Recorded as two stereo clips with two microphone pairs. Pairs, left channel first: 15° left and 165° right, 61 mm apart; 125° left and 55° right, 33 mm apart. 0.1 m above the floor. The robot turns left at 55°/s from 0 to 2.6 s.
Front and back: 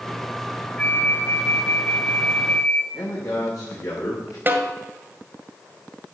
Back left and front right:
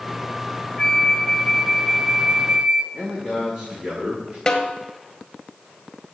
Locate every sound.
0.8 s a flute: 80° left, 1.0 m; by 2.8 s 25° right, 1.0 m
2.9 s a man speaking: 10° left, 6 m
4.5 s a snare drum: straight behind, 1.6 m